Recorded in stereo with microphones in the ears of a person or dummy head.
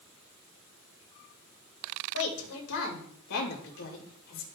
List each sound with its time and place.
2.1 s a woman speaking: 80° left, 2.5 m; by 4.5 s 60° left (ahead or behind), 2.5 m